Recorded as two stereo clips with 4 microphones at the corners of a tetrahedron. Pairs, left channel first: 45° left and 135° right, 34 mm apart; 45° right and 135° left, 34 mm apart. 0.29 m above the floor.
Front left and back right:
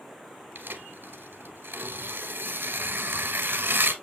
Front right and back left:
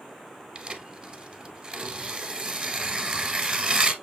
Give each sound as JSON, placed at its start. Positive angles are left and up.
{"t": 0.6, "sound": "tearing paper", "azimuth_deg": -165, "distance_m": 1.0}